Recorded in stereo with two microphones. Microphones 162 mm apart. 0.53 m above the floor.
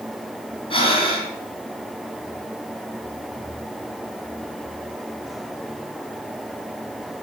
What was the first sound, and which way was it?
Breathing, 35° left (ahead or behind).